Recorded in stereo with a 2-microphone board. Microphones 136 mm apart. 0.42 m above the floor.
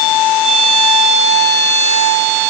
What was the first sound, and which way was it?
Only background noise.